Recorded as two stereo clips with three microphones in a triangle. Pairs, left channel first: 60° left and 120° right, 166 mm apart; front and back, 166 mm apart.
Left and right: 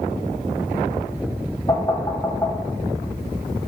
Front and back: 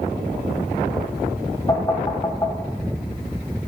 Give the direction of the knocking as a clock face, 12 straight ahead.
11 o'clock.